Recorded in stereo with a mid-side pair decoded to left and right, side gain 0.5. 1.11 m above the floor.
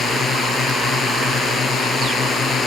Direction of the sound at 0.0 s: 50° left.